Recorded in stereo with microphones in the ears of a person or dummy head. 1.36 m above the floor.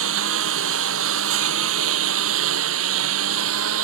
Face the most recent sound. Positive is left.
turn(degrees=-85)